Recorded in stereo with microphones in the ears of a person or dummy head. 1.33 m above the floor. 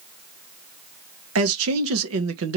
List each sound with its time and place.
1.4 s a man speaking: 75° right (ahead or behind), 1.3 m